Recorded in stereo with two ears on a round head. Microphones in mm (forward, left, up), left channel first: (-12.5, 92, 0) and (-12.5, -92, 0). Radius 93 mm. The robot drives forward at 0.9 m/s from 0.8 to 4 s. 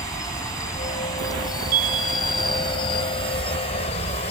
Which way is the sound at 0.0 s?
15° left (ahead or behind).